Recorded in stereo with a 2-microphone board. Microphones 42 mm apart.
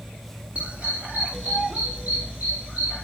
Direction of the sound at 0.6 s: 30° right (ahead or behind).